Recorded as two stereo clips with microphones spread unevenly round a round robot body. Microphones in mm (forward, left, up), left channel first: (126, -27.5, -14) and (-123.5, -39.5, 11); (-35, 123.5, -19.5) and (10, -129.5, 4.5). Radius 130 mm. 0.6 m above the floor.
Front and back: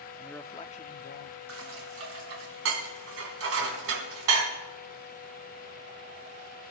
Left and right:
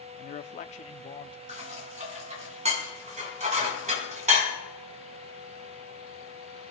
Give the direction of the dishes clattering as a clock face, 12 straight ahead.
5 o'clock.